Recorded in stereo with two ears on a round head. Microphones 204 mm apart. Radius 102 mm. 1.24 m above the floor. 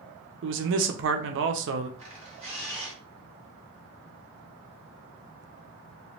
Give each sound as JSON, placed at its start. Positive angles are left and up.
{"t": 0.4, "sound": "a man speaking", "side_deg": -55, "distance_m": 0.6}
{"t": 2.0, "sound": "a camera shutter", "side_deg": -30, "distance_m": 1.9}